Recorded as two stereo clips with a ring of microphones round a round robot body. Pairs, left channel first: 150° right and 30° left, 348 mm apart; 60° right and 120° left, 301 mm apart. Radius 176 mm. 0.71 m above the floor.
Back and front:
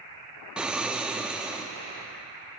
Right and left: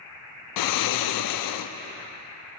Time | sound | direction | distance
0.6 | snoring | 55° right | 0.5 m